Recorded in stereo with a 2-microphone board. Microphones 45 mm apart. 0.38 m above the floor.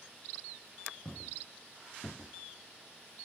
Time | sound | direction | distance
1.1 | footsteps | 35° left (ahead or behind) | 2.5 m